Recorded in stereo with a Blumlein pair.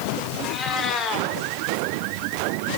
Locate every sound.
0.4 s a cat meowing: 25° left, 3 m